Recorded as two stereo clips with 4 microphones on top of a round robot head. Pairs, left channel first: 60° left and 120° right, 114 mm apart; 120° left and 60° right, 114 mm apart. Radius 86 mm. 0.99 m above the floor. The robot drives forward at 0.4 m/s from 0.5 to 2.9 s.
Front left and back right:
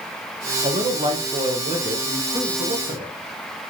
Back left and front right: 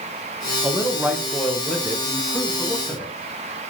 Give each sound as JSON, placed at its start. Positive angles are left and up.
{"t": 0.6, "sound": "a man speaking", "azimuth_deg": -125, "distance_m": 0.6}